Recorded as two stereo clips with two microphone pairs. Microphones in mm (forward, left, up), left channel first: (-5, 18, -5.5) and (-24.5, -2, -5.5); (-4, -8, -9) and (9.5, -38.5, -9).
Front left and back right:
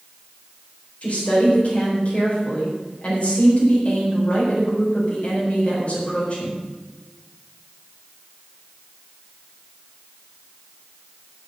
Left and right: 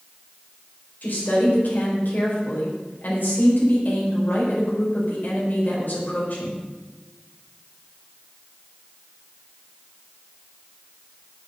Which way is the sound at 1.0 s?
85° left.